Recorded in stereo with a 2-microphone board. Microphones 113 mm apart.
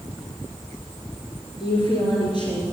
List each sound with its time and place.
1.6 s a woman speaking: 45° left (ahead or behind), 3.5 m